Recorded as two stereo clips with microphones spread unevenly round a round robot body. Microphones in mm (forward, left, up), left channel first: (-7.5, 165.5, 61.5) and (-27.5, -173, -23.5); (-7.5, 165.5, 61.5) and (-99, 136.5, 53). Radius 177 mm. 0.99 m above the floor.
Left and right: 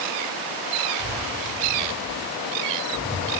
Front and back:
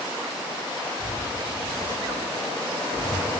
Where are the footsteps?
35° right, 6 m; by 3.2 s 10° right, 7.5 m.